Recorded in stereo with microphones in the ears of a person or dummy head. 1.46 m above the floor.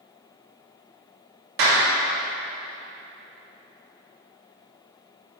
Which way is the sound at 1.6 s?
60° right (ahead or behind).